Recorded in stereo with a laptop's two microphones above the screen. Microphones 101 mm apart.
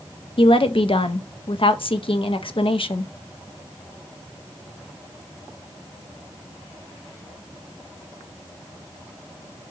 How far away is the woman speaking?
About 0.5 m.